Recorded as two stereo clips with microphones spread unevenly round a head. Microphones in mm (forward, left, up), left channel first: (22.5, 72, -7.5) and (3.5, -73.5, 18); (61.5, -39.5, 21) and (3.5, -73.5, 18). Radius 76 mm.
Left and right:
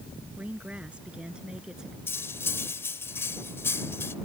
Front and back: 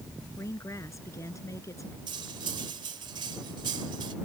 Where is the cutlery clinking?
160° left.